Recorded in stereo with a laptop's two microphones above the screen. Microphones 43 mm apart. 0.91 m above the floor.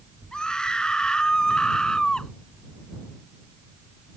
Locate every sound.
0.3 s a scream: 20° left (ahead or behind)